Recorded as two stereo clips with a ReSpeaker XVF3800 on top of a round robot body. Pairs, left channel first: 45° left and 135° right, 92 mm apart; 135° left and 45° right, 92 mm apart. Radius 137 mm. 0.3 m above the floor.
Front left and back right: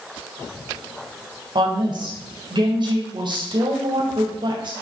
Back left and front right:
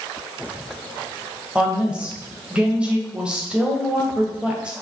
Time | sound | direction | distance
1.6 | a woman speaking | 120° right | 2.5 m